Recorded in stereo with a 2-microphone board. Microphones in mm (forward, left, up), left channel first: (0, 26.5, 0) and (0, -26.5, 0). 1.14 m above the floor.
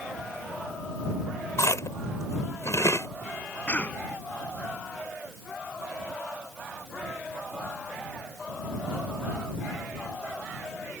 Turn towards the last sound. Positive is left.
turn(degrees=35)  # may be behind; listen again after turning